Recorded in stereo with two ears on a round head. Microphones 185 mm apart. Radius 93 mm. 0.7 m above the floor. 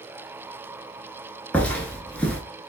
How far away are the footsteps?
About 0.6 m.